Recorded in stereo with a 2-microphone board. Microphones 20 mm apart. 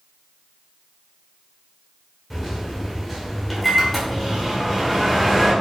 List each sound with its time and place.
2.3 s a microwave: centre (ahead or behind), 1.3 m